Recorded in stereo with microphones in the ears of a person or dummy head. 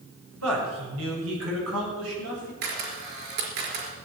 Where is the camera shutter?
55° right (ahead or behind), 4 m.